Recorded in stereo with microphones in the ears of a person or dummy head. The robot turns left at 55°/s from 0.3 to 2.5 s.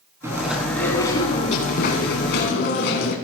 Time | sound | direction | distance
0.2 | chewing | 160° right | 3.5 m